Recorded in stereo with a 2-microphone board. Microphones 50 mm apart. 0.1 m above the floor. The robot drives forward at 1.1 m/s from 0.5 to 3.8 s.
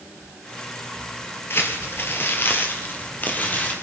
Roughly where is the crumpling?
Left.